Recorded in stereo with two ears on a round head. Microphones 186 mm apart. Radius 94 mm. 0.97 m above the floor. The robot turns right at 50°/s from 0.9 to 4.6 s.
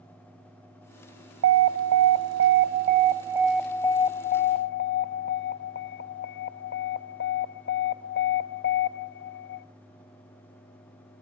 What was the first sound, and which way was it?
An alarm, 110° right.